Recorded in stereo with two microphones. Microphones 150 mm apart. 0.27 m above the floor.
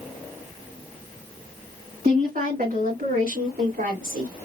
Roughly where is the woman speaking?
Right.